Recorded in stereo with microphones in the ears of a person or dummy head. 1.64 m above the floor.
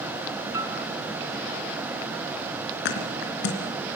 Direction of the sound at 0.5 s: 20° right (ahead or behind).